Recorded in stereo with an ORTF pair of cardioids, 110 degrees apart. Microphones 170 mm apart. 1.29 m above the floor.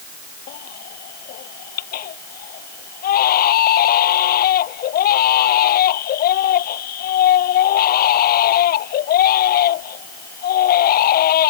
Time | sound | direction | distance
0.5 | a baby crying | 65° left | ?